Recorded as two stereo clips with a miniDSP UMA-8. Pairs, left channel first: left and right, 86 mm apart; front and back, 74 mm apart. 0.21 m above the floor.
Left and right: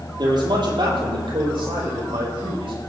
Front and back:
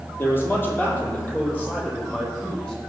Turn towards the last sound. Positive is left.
turn(degrees=-75)